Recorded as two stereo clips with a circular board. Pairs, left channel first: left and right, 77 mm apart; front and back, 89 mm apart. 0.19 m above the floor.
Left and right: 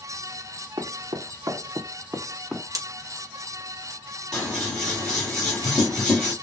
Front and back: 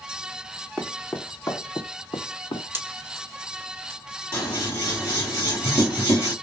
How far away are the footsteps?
About 1.0 m.